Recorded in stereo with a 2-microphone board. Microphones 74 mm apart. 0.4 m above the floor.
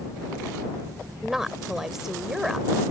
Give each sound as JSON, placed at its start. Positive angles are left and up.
{"t": 1.2, "sound": "a woman speaking", "side_deg": -5}